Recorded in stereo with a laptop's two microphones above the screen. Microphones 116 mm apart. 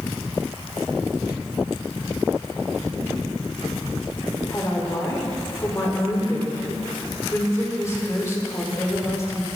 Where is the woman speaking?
25° left (ahead or behind), 3.5 m.